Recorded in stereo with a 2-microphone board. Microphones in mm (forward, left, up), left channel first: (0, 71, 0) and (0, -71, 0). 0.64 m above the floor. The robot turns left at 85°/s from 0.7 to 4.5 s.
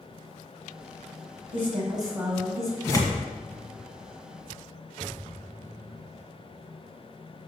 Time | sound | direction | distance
1.5 | a woman speaking | 110° right | 3.5 m
2.8 | tearing paper | 15° left (ahead or behind) | 1.8 m